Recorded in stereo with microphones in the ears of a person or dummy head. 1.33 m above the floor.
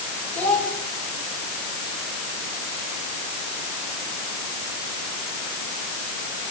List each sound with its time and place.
0.3 s a child speaking: 5° left (ahead or behind), 4 m